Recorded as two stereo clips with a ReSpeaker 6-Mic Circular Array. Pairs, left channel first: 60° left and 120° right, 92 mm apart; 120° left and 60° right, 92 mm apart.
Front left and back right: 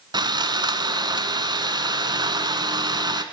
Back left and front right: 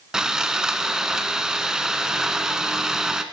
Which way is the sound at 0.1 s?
145° right.